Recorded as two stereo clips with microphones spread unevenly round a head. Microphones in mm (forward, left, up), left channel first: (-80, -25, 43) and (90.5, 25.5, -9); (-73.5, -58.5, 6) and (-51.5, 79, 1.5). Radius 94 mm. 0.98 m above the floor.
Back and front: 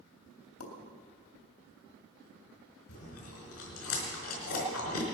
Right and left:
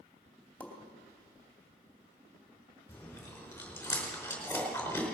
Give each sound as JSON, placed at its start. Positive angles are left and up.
{"t": 0.6, "sound": "a pop", "azimuth_deg": 180, "distance_m": 3.0}
{"t": 2.9, "sound": "chewing", "azimuth_deg": -175, "distance_m": 4.5}